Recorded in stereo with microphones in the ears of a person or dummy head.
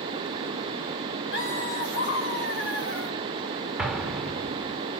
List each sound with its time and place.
1.3 s laughter: 60° left (ahead or behind), 5 m
3.8 s an explosion: centre (ahead or behind), 3 m